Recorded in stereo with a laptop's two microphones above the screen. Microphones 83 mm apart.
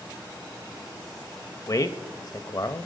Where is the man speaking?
50° left (ahead or behind), 0.6 m.